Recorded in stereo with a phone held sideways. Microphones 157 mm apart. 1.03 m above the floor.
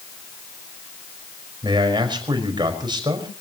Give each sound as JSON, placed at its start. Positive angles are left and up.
{"t": 1.6, "sound": "a man speaking", "side_deg": -30, "distance_m": 5.0}